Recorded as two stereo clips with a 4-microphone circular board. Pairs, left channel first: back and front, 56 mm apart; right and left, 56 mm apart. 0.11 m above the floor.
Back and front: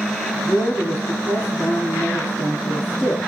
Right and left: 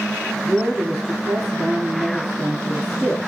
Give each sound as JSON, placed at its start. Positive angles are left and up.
{"t": 0.4, "sound": "a woman speaking", "azimuth_deg": 175, "distance_m": 2.5}